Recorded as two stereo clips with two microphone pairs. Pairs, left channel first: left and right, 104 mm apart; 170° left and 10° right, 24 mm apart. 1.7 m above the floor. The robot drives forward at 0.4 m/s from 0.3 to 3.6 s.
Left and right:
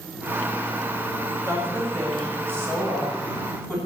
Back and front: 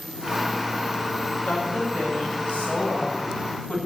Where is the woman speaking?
160° right, 7.5 m.